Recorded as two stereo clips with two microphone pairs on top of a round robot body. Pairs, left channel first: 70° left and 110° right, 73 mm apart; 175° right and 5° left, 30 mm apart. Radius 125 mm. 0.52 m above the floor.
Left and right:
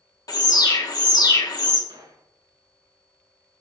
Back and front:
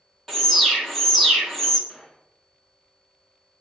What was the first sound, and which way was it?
An alarm, 105° left.